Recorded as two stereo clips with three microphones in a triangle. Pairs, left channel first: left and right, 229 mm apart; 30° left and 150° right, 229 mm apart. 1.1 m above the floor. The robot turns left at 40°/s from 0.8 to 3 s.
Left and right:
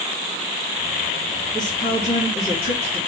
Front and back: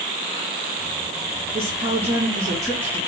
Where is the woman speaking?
160° left, 1.8 m; by 3.0 s 105° left, 1.8 m.